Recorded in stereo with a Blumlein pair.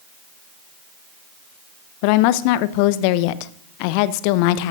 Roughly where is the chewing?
I don't hear chewing.